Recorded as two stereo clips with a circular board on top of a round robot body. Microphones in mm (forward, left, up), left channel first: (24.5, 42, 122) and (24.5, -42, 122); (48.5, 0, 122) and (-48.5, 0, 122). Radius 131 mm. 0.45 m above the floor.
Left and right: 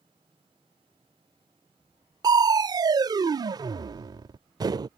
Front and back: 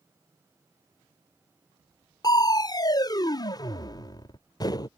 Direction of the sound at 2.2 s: 50° right.